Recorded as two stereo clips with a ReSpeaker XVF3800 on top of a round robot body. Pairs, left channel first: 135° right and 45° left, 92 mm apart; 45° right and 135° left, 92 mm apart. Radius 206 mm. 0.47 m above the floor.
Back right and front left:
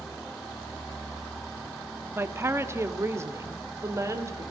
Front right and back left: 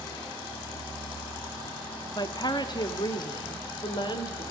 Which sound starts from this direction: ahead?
A woman speaking, at 2.1 s.